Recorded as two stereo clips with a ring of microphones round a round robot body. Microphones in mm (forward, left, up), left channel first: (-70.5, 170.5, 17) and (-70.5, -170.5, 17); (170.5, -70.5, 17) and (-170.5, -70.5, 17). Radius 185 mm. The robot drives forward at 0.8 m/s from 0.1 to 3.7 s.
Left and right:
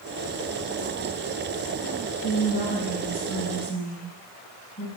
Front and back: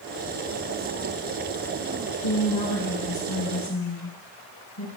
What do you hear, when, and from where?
2.2 s a woman speaking: 25° left, 3.5 m; by 4.9 s 35° left, 2.5 m